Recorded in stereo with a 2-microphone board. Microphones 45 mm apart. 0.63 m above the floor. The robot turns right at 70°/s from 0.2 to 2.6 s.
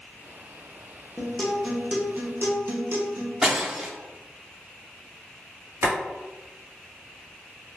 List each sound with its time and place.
1.2 s a guitar: 150° left, 0.7 m; by 3.3 s 110° right, 0.7 m
3.4 s breaking glass: 10° right (ahead or behind), 0.7 m
5.8 s boiling: 75° right (ahead or behind), 1.4 m